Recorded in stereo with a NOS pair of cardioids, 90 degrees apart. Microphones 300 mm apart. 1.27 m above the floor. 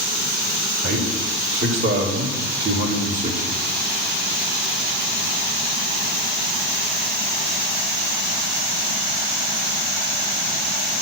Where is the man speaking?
50° right, 5 m; by 3.6 s 15° right, 2.5 m.